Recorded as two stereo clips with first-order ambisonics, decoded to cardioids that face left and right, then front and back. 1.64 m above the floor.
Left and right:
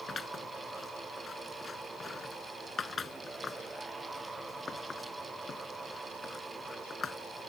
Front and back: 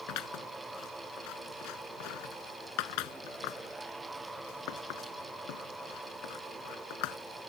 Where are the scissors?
20° left.